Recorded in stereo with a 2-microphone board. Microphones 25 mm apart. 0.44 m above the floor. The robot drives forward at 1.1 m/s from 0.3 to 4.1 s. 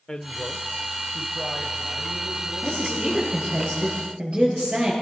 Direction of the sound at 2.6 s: 35° right (ahead or behind).